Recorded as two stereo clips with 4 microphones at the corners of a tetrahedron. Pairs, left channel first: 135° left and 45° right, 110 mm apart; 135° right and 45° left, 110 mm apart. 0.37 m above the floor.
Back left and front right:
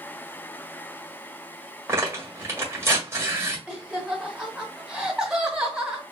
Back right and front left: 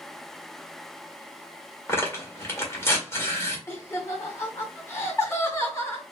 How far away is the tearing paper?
About 1.6 m.